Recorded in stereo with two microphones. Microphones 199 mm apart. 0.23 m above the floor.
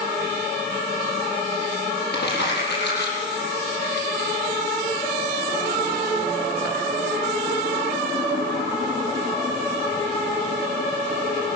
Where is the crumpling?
60° left (ahead or behind), 8 m.